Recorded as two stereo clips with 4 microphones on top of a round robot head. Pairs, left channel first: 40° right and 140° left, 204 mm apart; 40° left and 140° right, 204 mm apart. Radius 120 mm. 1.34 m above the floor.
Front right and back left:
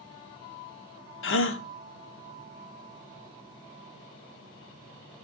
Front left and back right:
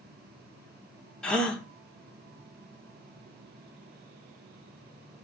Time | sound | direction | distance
1.2 | a gasp | 45° right | 1.1 m